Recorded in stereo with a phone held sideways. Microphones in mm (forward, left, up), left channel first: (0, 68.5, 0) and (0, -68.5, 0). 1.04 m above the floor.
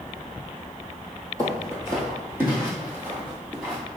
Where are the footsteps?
25° right (ahead or behind), 1.4 m; by 3.8 s 5° right (ahead or behind), 2 m.